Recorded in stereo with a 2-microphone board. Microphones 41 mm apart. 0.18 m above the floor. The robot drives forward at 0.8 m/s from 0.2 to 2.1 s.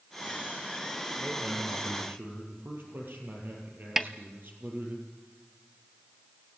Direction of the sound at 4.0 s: 5° right (ahead or behind).